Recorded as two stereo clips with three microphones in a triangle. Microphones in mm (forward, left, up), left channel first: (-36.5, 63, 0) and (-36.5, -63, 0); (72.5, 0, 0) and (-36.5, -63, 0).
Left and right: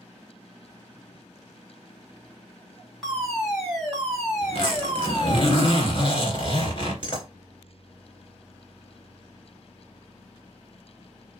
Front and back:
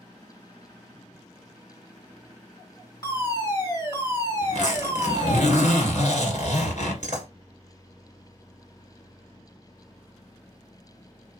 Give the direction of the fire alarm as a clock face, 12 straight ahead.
12 o'clock.